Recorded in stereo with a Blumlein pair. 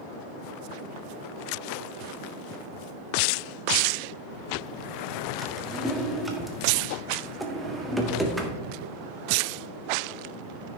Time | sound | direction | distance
5.4 | a drawer | 5° right | 1.4 m